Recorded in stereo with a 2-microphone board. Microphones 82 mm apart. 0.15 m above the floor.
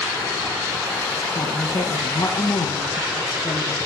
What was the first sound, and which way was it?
A woman speaking, 50° left (ahead or behind).